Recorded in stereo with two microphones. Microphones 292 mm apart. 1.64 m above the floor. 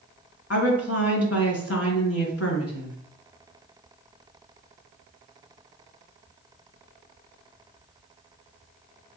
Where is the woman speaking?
55° left (ahead or behind), 1.4 m.